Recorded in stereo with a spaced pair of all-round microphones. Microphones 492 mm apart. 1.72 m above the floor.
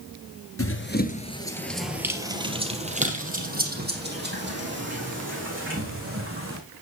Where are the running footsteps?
30° left (ahead or behind), 1.9 m; by 6.6 s 25° right (ahead or behind), 8 m.